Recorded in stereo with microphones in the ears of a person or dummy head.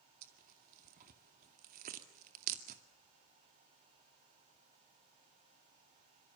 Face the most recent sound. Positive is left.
turn(degrees=-50)  # may be behind; listen again after turning